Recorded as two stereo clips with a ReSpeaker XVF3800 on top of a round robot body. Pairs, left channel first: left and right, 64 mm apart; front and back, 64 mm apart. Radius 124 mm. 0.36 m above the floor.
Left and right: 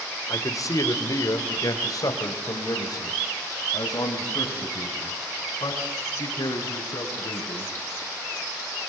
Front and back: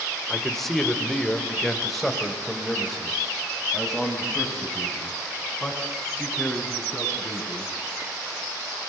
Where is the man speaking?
85° left, 2 m; by 7.7 s 90° left, 6 m.